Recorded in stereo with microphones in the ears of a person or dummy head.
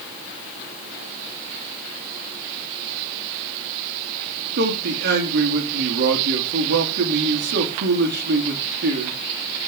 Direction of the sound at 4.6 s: 60° right (ahead or behind).